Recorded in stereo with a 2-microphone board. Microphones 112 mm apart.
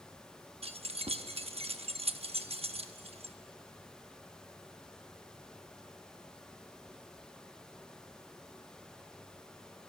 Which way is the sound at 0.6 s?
65° right (ahead or behind).